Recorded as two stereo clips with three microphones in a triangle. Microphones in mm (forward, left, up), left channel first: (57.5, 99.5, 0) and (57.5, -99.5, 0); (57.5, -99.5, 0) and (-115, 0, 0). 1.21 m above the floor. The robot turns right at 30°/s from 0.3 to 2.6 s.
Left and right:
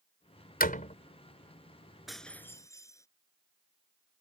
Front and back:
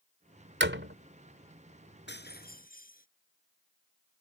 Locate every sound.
0.6 s a door slam: 130° left; by 0.9 s 140° left
2.1 s breaking glass: straight ahead; by 3.1 s 15° left